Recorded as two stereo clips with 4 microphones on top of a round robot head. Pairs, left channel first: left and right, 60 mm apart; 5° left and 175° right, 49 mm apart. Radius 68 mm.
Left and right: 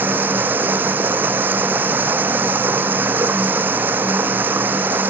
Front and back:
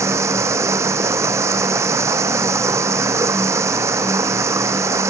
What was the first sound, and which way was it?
Running water, 150° right.